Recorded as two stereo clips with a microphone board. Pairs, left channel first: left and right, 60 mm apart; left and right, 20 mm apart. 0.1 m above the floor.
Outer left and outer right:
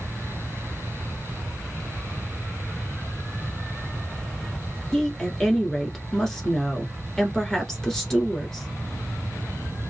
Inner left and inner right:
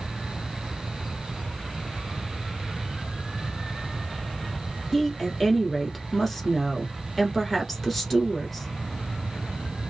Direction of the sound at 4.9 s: 5° left (ahead or behind).